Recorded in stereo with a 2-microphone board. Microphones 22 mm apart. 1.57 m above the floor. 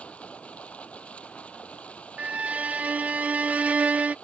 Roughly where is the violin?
Right.